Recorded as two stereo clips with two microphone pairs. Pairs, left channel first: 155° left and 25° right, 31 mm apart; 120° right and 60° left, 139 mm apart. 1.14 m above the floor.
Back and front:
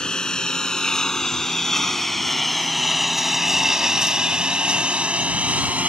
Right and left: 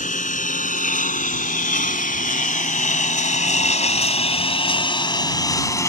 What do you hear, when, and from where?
0.0 s a lawn mower: 140° right; by 5.9 s 55° right